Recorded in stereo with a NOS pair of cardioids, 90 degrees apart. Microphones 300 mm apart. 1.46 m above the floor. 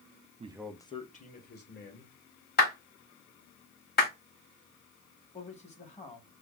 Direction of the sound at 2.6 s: 30° left.